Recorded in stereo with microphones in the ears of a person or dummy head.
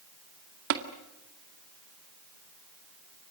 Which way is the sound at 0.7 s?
65° right (ahead or behind).